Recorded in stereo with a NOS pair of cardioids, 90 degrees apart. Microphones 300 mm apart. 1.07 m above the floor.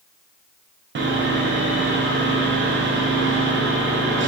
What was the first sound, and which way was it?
Sawing, 40° right.